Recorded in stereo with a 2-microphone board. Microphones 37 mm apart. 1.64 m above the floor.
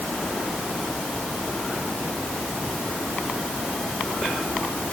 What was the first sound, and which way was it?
Only background noise.